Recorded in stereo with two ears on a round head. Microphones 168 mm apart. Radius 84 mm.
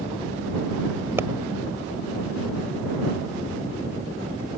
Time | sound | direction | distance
1.2 | a pop | 15° right (ahead or behind) | ?